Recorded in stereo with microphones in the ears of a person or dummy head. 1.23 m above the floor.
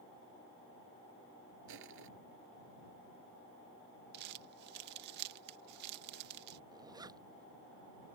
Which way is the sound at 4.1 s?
60° right (ahead or behind).